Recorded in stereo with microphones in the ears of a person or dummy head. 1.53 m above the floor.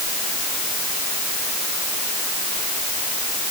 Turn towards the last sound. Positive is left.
No sound to turn to.